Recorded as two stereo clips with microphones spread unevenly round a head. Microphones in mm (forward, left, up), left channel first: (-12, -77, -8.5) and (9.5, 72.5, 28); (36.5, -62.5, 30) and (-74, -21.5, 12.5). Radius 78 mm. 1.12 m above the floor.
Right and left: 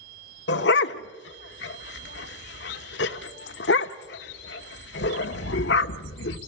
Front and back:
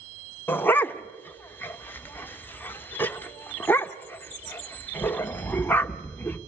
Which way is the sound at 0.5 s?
85° right.